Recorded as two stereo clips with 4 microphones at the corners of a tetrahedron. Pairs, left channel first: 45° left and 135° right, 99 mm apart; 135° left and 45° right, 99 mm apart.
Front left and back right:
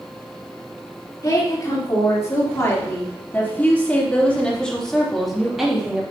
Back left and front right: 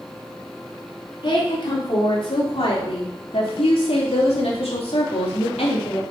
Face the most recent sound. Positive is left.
turn(degrees=145)